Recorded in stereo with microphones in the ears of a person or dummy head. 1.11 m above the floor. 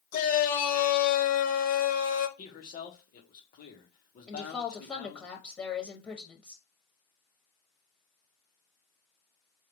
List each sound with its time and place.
0.1 s a shout: 45° left (ahead or behind), 1.3 m
2.4 s a man speaking: 45° left (ahead or behind), 1.3 m
4.3 s a woman speaking: 10° left (ahead or behind), 1.0 m